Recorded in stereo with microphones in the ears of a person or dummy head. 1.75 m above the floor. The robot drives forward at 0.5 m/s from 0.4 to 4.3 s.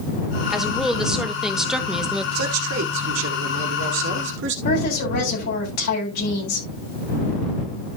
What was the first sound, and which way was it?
A woman speaking, centre (ahead or behind).